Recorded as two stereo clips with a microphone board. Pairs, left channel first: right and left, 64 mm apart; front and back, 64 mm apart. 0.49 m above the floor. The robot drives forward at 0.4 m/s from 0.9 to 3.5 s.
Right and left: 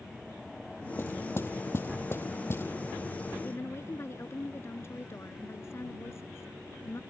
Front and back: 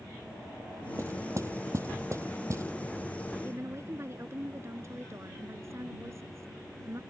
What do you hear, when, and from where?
1.0 s knocking: 140° right
3.4 s a woman speaking: 135° right